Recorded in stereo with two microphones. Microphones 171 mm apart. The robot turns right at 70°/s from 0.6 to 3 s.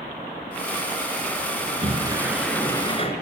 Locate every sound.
1.6 s a sliding door: 60° right, 3 m; by 3.1 s 40° left, 3 m